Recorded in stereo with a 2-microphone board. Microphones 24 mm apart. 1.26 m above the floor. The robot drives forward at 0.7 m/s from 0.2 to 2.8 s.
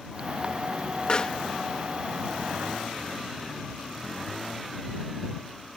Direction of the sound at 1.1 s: 40° left (ahead or behind).